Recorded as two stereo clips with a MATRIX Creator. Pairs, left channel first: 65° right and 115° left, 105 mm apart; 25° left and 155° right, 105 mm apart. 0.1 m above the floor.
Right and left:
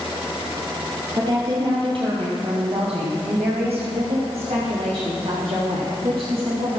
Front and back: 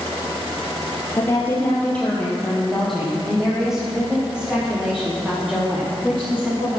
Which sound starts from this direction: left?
A woman speaking, at 1.2 s.